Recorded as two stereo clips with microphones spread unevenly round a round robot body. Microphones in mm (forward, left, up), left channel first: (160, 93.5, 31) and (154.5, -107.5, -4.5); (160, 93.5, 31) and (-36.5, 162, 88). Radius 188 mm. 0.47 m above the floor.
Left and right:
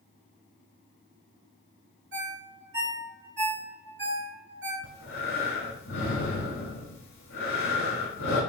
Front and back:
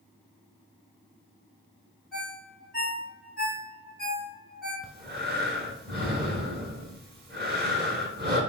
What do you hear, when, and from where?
2.1 s a ringtone: 100° right, 1.3 m
4.8 s breathing: 120° left, 1.0 m